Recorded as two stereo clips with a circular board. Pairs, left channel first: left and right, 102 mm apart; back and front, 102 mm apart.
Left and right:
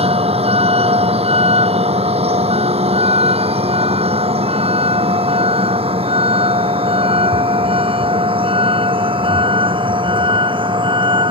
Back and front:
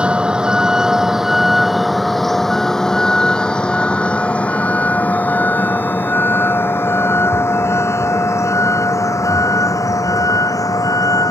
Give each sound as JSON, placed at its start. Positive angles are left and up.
{"t": 0.0, "sound": "a vehicle", "azimuth_deg": -80}